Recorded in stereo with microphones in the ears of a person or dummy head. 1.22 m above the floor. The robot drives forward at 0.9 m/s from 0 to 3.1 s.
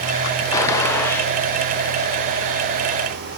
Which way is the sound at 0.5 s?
20° left (ahead or behind).